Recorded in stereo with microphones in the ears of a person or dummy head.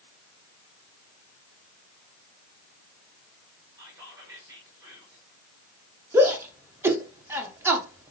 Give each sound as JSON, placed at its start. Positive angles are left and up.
{"t": 3.8, "sound": "whispering", "side_deg": -15, "distance_m": 4.5}
{"t": 6.1, "sound": "a shout", "side_deg": -10, "distance_m": 1.8}